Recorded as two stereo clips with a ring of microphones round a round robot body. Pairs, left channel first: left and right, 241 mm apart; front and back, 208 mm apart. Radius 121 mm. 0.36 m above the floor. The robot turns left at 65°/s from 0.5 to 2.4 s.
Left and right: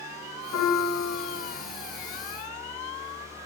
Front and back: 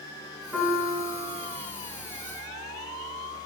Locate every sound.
0.5 s a piano: 90° left, 3 m; by 1.6 s 20° left, 3 m